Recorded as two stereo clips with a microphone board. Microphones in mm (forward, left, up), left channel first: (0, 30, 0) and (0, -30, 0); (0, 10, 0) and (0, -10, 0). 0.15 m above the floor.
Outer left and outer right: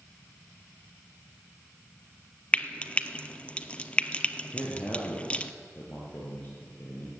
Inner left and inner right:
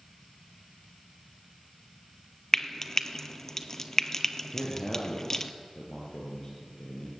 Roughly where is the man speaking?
Left.